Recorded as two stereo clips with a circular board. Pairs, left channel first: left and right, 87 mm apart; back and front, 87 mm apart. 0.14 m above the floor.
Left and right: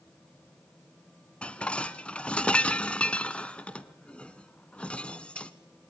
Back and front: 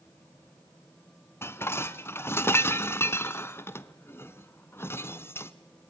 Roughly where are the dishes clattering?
Behind left.